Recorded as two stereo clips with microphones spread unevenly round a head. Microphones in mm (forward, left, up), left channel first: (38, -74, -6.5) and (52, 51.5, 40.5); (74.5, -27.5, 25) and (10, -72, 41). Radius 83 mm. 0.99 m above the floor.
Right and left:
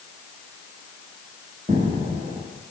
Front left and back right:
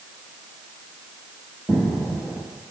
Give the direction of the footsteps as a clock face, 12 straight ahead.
8 o'clock.